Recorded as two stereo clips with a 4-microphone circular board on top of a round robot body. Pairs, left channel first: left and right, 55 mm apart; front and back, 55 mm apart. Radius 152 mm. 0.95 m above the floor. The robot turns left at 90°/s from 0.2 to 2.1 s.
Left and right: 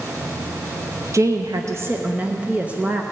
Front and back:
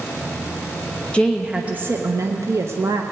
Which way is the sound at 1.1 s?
70° right.